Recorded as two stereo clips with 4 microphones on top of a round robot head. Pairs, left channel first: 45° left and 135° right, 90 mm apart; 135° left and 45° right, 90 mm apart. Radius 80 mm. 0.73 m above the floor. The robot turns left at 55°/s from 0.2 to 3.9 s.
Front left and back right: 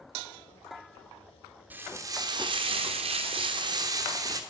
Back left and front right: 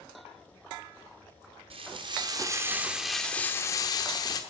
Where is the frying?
60° right, 1.1 m; by 4.4 s straight behind, 1.1 m.